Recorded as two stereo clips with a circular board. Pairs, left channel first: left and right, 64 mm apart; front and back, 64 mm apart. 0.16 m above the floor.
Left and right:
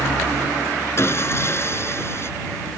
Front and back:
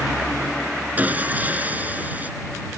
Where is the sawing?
125° left.